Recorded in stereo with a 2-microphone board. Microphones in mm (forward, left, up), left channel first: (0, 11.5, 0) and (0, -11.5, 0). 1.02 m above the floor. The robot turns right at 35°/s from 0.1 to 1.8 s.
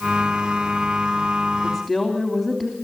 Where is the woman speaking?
5° left (ahead or behind), 3 m; by 2.8 s centre (ahead or behind), 3 m.